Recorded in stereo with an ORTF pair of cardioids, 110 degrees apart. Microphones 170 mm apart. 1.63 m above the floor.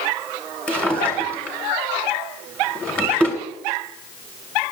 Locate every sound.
0.7 s a drawer: 5° left, 2.5 m